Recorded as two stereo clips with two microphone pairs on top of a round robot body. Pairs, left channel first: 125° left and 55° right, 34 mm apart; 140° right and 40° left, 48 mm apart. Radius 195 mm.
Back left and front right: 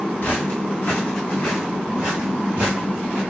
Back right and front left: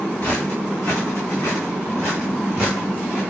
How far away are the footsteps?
About 1.1 m.